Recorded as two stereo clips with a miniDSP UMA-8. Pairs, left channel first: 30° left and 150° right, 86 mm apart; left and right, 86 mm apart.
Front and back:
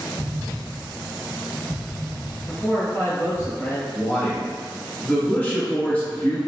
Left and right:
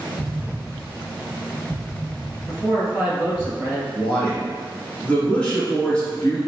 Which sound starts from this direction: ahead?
A man speaking, at 2.5 s.